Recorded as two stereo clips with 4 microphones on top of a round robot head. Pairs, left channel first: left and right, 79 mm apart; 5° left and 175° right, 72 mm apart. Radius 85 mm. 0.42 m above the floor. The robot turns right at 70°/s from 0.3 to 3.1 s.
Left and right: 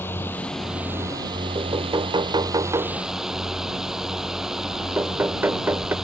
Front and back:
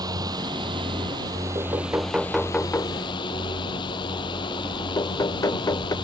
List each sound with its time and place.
0.0 s a drone: 160° left; by 6.0 s 5° right
1.6 s knocking: 135° right; by 6.0 s 30° right